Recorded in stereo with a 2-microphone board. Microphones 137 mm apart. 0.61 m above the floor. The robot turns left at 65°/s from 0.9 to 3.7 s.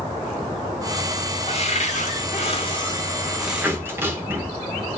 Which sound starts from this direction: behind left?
A cupboard door, at 1.5 s.